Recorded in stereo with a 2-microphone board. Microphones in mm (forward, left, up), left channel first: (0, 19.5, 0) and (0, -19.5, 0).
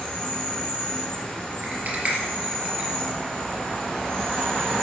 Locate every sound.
0.0 s an insect: 15° left (ahead or behind), 4.5 m
1.6 s a rattle: 40° right (ahead or behind), 3 m